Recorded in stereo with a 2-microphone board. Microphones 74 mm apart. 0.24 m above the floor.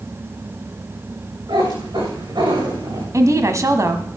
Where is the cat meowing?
80° right, 8 m; by 3.0 s 75° right (ahead or behind), 7 m.